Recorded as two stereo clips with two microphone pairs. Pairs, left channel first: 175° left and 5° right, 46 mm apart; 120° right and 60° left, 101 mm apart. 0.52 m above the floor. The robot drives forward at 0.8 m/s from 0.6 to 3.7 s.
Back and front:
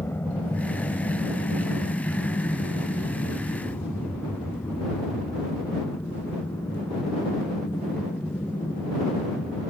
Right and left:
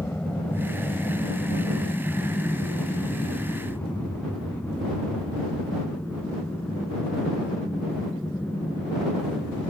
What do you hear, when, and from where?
0.0 s an aircraft: 170° left; by 9.7 s 165° left